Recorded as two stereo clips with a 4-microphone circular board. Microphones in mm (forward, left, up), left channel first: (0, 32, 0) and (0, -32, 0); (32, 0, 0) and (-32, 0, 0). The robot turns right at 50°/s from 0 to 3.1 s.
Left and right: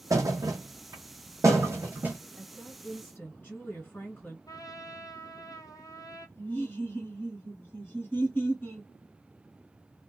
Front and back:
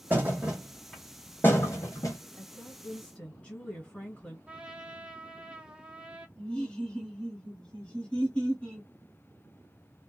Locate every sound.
0.1 s a thud: 125° right, 1.1 m; by 2.2 s 20° right, 1.1 m
2.4 s a woman speaking: 20° left, 1.8 m; by 4.4 s 60° left, 1.8 m
4.5 s a trumpet: 105° left, 0.7 m
6.4 s laughter: 60° left, 1.5 m